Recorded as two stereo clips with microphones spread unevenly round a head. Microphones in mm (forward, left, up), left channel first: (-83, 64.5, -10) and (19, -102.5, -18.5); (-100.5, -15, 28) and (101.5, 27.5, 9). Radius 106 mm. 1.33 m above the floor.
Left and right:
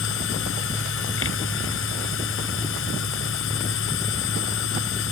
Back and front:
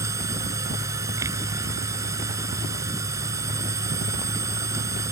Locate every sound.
0.0 s a machine running: 90° left